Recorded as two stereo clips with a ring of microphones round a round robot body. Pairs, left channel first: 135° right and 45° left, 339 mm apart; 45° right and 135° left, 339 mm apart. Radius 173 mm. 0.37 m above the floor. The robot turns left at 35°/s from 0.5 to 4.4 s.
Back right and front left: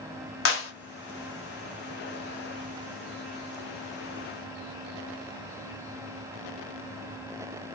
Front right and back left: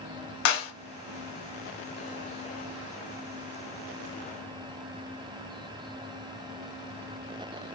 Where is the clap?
85° right, 1.7 m; by 0.7 s 90° right, 1.7 m.